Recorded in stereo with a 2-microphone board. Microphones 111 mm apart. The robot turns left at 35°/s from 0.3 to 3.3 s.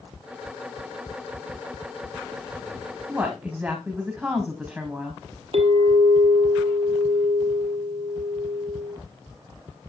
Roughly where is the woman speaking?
Centre.